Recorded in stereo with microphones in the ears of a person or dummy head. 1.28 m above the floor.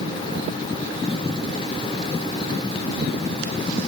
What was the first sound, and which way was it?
Only background noise.